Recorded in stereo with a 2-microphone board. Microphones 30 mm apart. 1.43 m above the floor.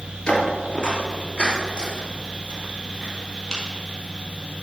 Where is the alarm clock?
No alarm clock in this recording.